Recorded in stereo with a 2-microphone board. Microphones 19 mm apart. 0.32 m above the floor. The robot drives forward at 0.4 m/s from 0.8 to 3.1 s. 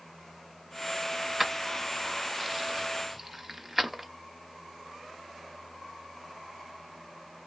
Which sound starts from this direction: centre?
Keys jangling, at 1.4 s.